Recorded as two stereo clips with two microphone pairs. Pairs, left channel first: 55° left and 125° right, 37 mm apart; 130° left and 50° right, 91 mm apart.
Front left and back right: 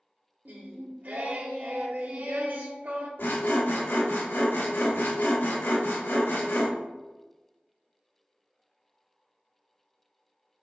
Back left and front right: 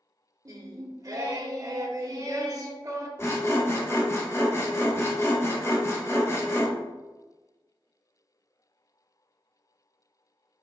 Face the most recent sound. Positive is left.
turn(degrees=70)